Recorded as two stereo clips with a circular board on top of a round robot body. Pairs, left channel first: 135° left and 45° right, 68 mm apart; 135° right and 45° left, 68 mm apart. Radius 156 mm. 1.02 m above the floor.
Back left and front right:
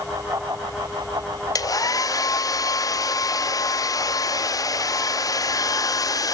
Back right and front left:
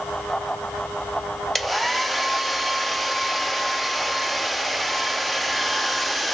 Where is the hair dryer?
135° left, 0.9 m.